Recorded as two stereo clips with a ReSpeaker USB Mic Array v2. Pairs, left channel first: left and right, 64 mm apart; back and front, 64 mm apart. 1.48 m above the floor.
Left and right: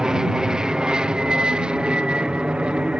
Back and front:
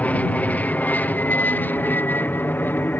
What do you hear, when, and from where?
0.0 s an aircraft: 155° right